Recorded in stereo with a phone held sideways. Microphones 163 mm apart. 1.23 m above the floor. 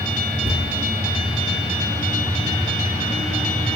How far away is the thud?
About 3 m.